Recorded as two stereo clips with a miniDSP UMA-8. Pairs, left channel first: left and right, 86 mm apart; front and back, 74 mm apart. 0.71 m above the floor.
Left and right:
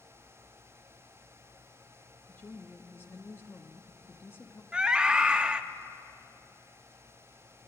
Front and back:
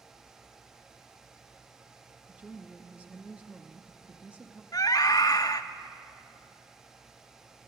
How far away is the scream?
About 0.8 m.